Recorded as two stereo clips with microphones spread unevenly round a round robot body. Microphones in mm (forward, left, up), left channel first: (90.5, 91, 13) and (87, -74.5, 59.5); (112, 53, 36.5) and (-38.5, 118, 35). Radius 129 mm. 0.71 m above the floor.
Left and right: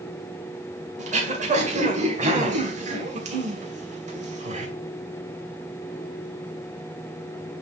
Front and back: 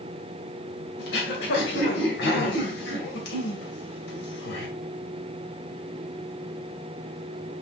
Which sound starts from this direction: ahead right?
Throat clearing, at 1.0 s.